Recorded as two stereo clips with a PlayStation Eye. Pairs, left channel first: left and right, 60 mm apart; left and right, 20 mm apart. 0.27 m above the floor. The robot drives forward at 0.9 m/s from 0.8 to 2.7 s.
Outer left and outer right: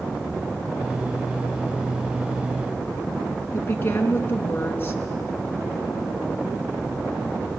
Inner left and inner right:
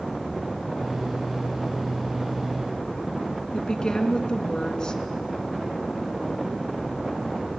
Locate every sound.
3.5 s a woman speaking: 35° left (ahead or behind), 2.5 m